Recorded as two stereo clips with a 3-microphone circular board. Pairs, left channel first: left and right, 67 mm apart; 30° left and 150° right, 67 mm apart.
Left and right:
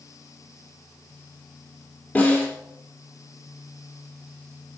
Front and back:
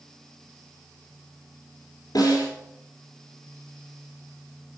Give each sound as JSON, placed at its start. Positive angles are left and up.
{"t": 2.1, "sound": "a snare drum", "azimuth_deg": 25, "distance_m": 3.0}